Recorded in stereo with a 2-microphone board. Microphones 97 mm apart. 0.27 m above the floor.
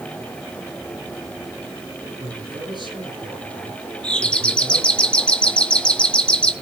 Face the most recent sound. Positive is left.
turn(degrees=10)  # may be behind; listen again after turning